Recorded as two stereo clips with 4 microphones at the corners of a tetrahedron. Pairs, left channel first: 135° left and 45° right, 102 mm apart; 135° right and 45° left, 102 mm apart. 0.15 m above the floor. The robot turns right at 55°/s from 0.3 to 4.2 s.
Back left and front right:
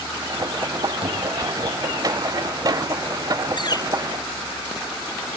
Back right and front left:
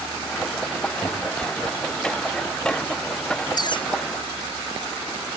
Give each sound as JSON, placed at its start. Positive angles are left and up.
{"t": 1.0, "sound": "a cupboard door", "azimuth_deg": -50}
{"t": 3.6, "sound": "a bird", "azimuth_deg": 175}